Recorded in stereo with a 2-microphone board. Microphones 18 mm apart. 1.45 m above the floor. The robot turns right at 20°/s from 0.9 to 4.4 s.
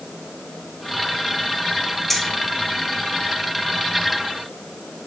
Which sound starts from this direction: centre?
Keys jangling, at 2.1 s.